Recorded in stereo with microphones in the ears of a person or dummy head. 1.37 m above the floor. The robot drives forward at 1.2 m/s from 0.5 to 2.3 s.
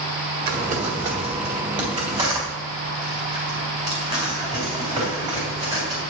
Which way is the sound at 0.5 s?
45° right (ahead or behind).